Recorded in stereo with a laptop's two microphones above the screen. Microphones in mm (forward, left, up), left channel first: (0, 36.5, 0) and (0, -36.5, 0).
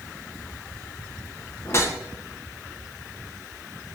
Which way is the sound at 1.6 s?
35° left (ahead or behind).